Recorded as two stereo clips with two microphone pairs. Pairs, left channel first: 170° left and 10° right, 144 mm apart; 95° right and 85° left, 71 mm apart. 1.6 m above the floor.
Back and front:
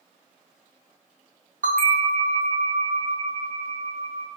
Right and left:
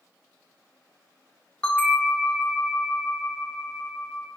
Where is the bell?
20° right, 0.6 m.